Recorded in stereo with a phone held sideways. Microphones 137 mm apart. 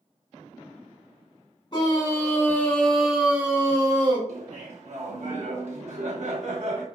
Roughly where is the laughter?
Right.